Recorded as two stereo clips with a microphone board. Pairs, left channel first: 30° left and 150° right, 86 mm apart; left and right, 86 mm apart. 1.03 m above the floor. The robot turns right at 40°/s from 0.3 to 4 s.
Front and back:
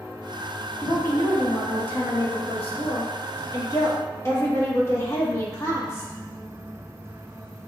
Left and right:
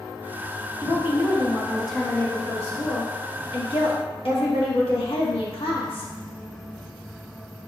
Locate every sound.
0.8 s a woman speaking: 40° right, 1.4 m; by 6.1 s 90° left, 1.4 m